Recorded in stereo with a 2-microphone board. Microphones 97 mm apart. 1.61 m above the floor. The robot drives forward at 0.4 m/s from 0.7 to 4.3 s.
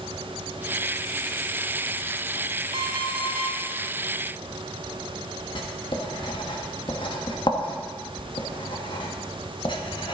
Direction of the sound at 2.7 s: 55° right (ahead or behind).